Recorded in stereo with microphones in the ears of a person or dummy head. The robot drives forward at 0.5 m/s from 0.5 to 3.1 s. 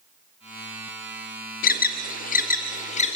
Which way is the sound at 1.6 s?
45° left (ahead or behind).